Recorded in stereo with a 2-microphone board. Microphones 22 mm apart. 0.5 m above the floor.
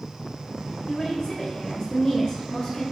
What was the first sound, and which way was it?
A woman speaking, 30° left (ahead or behind).